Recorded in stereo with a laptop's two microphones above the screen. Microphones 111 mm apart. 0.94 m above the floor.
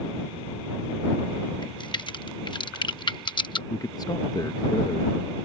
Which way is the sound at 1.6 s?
45° left (ahead or behind).